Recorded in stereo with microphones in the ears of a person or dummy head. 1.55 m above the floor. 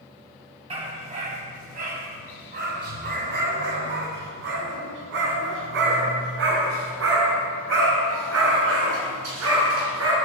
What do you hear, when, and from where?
0.7 s a dog barking: 35° right (ahead or behind), 5 m; by 10.2 s 80° right, 9 m